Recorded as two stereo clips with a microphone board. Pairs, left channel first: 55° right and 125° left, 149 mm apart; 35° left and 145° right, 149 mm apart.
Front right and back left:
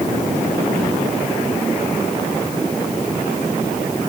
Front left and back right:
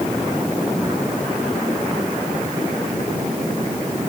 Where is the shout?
I don't hear a shout.